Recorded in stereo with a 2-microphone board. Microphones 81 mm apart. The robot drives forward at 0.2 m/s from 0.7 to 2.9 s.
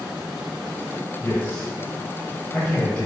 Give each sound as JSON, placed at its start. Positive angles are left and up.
{"t": 1.2, "sound": "a man speaking", "side_deg": 20, "distance_m": 1.1}